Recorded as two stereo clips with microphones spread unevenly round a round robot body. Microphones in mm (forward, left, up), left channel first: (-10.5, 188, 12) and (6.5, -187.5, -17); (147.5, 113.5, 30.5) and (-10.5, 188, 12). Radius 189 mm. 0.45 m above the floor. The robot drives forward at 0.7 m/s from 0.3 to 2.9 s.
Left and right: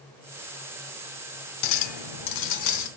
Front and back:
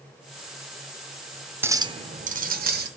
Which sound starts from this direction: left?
A clink, at 1.6 s.